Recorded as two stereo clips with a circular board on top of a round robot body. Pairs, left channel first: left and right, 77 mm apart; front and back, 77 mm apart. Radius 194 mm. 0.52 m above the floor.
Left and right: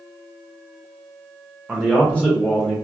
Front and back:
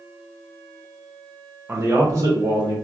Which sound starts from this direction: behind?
A man speaking, at 1.7 s.